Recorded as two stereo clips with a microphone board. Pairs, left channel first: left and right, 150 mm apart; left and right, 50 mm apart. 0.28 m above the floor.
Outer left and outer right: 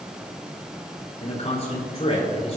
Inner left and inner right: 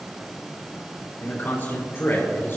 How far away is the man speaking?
About 5 m.